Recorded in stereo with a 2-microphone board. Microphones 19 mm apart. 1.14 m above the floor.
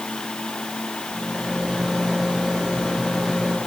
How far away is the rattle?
About 10 m.